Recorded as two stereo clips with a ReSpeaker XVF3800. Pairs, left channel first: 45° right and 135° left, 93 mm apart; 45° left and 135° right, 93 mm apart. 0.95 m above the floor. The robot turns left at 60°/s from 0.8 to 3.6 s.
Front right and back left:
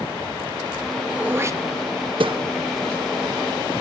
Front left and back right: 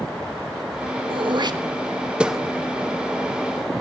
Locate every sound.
1.1 s throat clearing: 145° right, 1.2 m; by 2.4 s 135° left, 1.2 m